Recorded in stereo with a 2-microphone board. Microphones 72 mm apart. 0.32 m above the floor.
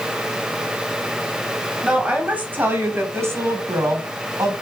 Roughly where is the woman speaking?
Centre.